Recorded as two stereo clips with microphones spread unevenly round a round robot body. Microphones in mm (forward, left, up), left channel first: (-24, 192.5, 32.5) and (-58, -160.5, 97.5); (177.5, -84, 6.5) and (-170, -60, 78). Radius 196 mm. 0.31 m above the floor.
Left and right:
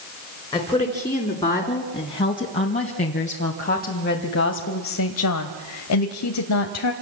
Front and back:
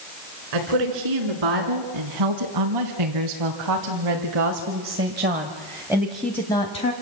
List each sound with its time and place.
0.5 s a woman speaking: 165° left, 4.5 m; by 6.9 s 55° left, 2.0 m